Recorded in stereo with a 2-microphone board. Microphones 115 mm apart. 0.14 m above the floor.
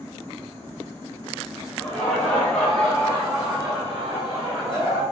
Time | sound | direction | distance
1.8 | laughter | 15° left (ahead or behind) | 1.3 m